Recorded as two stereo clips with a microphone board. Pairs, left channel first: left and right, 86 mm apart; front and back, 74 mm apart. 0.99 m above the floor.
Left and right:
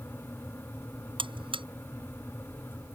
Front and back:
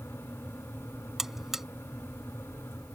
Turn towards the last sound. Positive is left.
turn(degrees=-95)